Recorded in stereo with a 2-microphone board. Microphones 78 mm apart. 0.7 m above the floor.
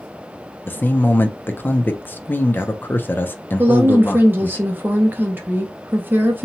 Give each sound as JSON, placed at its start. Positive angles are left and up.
{"t": 0.7, "sound": "a man speaking", "side_deg": 25, "distance_m": 0.5}
{"t": 3.6, "sound": "a woman speaking", "side_deg": -25, "distance_m": 0.6}